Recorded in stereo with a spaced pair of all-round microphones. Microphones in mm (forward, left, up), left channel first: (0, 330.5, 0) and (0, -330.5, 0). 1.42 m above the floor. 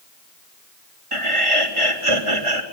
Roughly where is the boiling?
No boiling in this recording.